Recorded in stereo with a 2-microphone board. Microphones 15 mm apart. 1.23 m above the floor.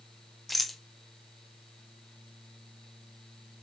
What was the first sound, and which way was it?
A rattle, 5° right (ahead or behind).